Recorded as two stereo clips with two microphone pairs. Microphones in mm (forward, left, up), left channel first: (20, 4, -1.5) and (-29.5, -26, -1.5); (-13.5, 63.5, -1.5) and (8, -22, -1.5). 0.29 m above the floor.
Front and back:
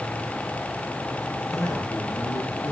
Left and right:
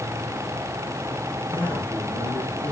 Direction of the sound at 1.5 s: 30° left.